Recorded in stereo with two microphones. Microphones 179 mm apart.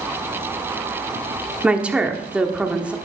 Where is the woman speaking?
5° right (ahead or behind), 1.2 m.